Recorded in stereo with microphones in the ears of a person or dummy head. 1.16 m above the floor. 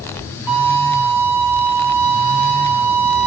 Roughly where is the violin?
Centre.